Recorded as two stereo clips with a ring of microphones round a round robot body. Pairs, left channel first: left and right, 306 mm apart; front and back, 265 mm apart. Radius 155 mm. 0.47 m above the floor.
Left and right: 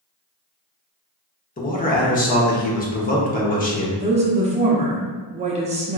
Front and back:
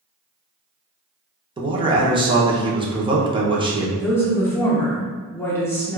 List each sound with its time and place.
1.6 s a man speaking: 125° left, 0.8 m
4.0 s a woman speaking: 65° right, 0.7 m